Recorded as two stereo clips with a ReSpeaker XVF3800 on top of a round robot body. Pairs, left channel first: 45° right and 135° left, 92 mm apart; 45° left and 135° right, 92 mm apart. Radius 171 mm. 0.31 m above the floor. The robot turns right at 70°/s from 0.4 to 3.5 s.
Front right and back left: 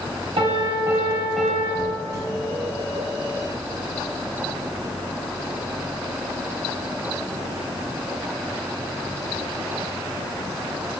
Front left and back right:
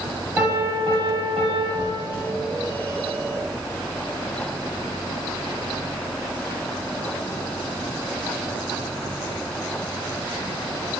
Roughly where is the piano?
Behind.